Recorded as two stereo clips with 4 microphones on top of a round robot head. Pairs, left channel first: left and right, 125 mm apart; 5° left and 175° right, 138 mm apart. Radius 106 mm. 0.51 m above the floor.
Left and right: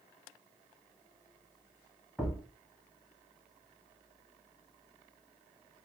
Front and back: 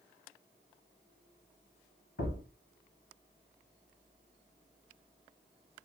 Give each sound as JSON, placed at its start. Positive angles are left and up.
{"t": 2.2, "sound": "a thud", "azimuth_deg": -10, "distance_m": 1.3}